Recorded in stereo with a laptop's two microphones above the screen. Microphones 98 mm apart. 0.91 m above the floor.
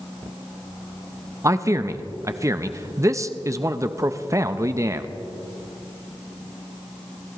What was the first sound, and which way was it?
A man speaking, 30° right (ahead or behind).